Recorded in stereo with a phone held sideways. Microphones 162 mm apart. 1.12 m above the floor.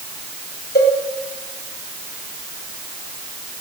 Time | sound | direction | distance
0.8 | a cowbell | 75° left (ahead or behind) | 2 m